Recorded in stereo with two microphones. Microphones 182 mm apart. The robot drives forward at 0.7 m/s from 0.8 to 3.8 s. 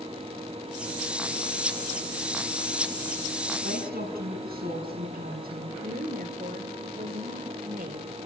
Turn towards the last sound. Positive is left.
turn(degrees=-60)  # may be behind; listen again after turning